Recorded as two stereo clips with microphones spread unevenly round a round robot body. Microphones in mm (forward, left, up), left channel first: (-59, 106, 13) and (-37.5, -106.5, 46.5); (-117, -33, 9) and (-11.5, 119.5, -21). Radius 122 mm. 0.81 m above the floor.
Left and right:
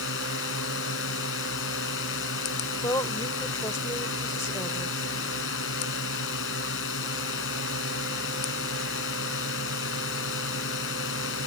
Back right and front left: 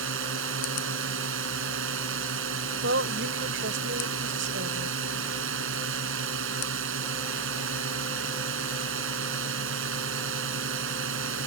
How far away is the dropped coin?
I don't hear a dropped coin.